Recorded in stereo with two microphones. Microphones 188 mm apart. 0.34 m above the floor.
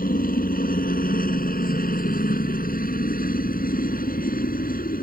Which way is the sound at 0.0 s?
50° left (ahead or behind).